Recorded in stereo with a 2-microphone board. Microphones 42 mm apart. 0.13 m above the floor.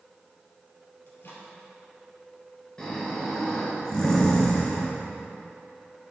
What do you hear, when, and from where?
1.1 s a microwave: 60° left (ahead or behind), 2 m
2.8 s snoring: 15° left (ahead or behind), 2 m